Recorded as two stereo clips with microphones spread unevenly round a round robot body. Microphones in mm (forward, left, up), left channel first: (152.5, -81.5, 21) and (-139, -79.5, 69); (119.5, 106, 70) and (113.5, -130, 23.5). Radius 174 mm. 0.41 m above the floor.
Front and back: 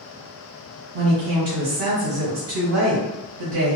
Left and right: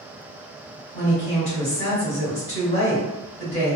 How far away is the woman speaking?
About 1.4 m.